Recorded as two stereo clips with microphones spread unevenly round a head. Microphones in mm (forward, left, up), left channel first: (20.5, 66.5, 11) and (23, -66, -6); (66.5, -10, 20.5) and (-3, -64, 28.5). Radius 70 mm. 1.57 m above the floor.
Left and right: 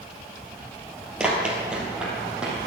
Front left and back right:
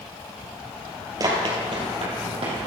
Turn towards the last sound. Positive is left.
turn(degrees=-175)